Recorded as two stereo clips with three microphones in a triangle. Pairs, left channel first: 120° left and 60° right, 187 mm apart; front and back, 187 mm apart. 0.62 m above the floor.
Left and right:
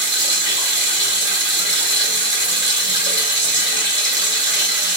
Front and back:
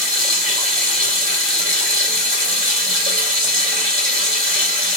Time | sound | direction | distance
0.0 | running water | 135° left | 1.3 m